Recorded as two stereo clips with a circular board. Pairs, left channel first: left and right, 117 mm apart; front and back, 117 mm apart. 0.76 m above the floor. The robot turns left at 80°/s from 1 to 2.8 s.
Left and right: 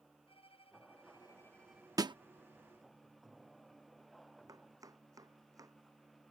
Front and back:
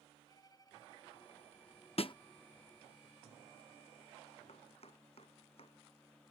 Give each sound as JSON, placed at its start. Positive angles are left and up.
{"t": 0.3, "sound": "a violin", "azimuth_deg": 55}
{"t": 2.0, "sound": "a snare drum", "azimuth_deg": -30}
{"t": 4.5, "sound": "chopping", "azimuth_deg": -30}